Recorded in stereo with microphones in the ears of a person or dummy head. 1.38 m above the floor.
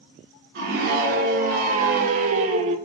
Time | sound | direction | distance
0.6 | a scream | 60° right (ahead or behind) | 3 m